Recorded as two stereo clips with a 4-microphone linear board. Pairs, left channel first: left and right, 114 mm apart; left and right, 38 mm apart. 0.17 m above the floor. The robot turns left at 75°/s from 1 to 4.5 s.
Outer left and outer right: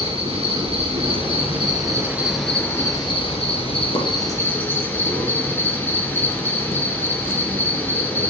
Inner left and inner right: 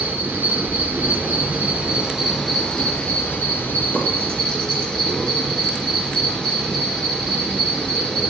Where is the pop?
55° left (ahead or behind), 3 m.